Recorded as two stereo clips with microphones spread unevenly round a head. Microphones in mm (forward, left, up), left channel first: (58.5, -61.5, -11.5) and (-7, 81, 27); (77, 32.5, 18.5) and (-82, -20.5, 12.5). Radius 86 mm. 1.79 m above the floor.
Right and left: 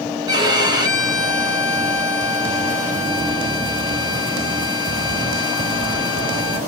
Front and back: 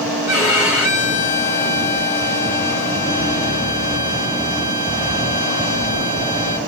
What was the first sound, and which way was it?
A violin, 85° left.